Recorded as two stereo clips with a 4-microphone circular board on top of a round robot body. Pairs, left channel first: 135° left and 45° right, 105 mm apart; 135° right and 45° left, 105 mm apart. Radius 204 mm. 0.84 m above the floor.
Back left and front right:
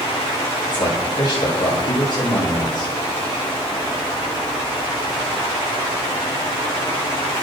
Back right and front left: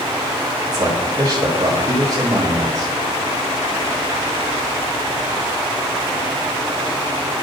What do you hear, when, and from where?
0.6 s a man speaking: 95° left, 6.5 m